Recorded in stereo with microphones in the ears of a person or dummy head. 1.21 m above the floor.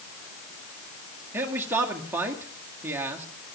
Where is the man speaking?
15° right (ahead or behind), 2.0 m.